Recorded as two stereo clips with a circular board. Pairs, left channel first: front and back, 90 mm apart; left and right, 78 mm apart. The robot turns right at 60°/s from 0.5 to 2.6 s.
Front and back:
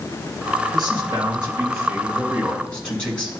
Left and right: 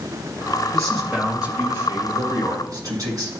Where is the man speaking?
170° left, 2.5 m; by 3.3 s 75° right, 2.5 m.